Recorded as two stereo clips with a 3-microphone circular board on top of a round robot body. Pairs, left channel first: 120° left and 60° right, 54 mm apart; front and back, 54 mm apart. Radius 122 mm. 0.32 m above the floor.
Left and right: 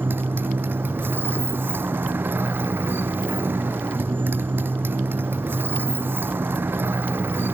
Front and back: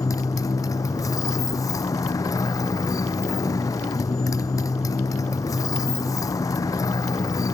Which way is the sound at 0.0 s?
10° right.